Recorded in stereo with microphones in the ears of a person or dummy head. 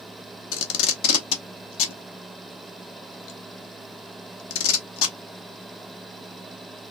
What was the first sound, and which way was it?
Tape being pulled, 80° left.